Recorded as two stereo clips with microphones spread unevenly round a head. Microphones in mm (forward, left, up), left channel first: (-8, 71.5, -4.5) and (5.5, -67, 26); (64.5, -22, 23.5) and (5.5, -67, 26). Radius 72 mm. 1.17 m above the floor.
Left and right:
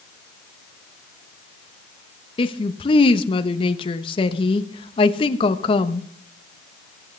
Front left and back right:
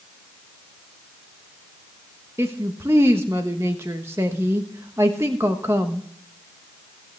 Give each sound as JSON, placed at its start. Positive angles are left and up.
{"t": 2.4, "sound": "a woman speaking", "azimuth_deg": 145, "distance_m": 1.1}